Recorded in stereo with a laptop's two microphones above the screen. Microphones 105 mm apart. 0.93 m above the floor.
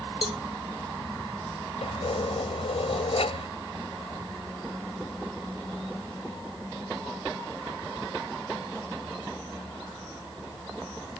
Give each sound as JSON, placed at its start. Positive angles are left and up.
{"t": 0.2, "sound": "a cowbell", "side_deg": -60}
{"t": 1.8, "sound": "keys jangling", "side_deg": 75}